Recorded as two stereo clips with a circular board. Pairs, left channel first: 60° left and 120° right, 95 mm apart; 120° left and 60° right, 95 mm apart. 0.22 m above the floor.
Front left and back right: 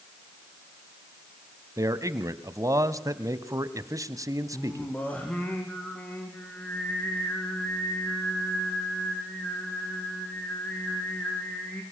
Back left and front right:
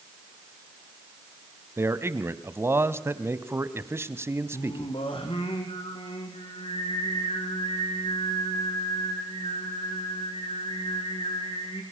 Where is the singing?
135° left, 4.5 m.